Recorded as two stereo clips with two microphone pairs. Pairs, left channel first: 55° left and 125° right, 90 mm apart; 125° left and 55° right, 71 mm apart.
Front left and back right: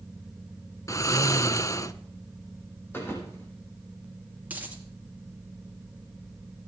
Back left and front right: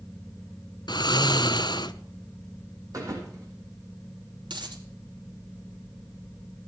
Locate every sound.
0.9 s snoring: 110° left, 0.7 m
2.9 s a thud: 10° right, 5 m
4.5 s a dropped coin: 50° right, 2.5 m